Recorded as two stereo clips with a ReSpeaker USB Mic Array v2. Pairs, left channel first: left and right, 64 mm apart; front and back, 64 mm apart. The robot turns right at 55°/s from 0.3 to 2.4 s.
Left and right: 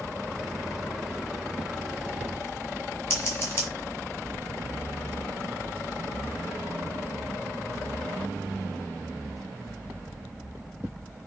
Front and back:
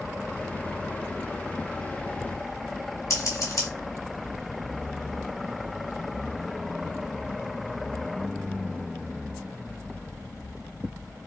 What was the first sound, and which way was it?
Scissors, 35° left.